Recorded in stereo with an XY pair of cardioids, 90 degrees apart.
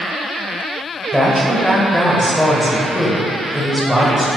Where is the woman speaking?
Straight ahead, 1.0 m.